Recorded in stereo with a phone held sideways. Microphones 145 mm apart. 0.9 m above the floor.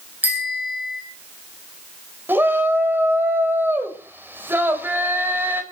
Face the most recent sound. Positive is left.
turn(degrees=-15)  # may be behind; listen again after turning